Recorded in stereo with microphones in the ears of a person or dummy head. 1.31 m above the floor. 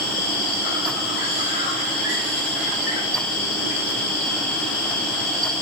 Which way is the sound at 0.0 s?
60° left (ahead or behind).